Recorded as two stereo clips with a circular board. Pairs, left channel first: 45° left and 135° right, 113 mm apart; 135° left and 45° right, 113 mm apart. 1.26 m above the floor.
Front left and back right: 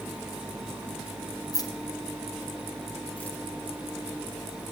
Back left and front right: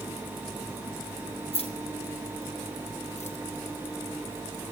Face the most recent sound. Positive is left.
turn(degrees=125)